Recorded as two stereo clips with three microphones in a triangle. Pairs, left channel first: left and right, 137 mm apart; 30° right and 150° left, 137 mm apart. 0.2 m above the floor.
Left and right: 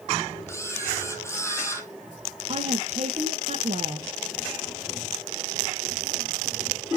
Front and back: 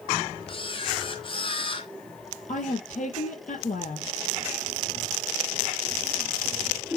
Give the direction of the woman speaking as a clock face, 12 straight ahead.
2 o'clock.